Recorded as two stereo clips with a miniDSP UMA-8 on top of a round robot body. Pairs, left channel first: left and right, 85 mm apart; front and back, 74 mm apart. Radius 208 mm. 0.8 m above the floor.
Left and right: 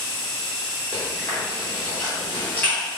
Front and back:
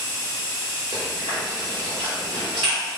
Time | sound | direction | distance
0.9 | chewing | 160° left | 0.6 m